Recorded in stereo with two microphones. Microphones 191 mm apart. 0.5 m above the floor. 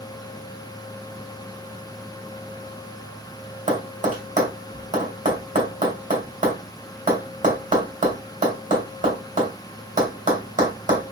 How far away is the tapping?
About 1.9 m.